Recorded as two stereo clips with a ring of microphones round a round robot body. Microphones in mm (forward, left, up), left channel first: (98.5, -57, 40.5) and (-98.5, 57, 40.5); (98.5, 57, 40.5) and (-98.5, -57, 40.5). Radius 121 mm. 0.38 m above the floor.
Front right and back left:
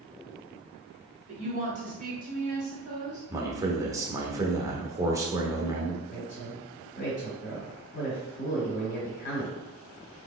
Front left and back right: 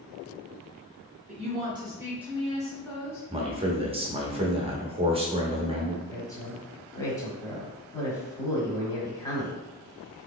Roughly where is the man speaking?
Behind right.